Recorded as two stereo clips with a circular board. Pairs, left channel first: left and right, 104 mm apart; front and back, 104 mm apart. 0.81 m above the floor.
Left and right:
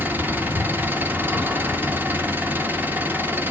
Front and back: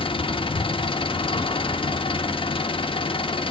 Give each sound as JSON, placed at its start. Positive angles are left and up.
{"t": 0.0, "sound": "an engine running", "azimuth_deg": -20, "distance_m": 0.8}